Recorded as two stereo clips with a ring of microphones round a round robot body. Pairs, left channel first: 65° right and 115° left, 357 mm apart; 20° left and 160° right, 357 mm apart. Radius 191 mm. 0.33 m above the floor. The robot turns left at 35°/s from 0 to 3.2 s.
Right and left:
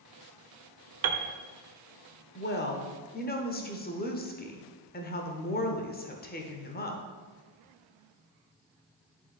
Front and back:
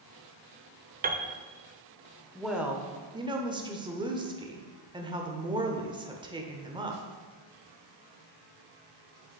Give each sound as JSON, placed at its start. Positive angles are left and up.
{"t": 1.0, "sound": "a piano", "azimuth_deg": 145, "distance_m": 0.7}
{"t": 2.4, "sound": "a woman speaking", "azimuth_deg": -65, "distance_m": 1.1}